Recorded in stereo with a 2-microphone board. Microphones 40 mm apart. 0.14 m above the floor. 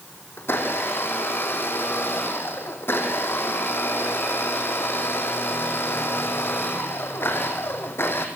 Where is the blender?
75° left (ahead or behind), 4 m.